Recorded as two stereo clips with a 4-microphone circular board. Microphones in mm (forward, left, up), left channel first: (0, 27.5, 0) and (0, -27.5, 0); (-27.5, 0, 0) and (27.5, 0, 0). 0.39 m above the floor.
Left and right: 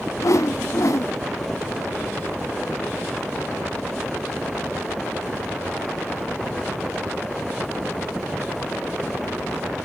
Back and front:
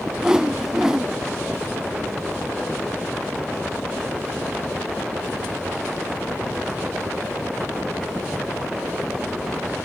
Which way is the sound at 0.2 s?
80° left.